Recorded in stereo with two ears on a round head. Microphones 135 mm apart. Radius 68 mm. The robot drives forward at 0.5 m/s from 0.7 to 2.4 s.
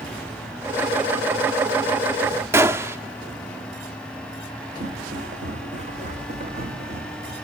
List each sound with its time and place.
2.5 s a gunshot: 15° right (ahead or behind), 0.7 m
4.8 s footsteps: 55° right (ahead or behind), 3.5 m; by 7.3 s 40° right (ahead or behind), 2.5 m